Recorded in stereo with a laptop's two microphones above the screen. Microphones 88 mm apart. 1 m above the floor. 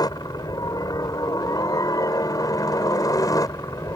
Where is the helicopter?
45° left (ahead or behind); by 4.0 s 40° left (ahead or behind).